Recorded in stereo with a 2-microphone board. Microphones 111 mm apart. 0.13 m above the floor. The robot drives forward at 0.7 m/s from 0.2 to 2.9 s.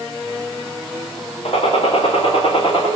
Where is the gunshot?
60° left (ahead or behind), 5 m; by 2.9 s 50° left (ahead or behind), 5.5 m.